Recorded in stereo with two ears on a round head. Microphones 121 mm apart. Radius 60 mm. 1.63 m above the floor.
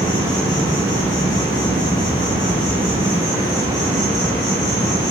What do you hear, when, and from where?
0.0 s an insect: 30° left (ahead or behind), 0.8 m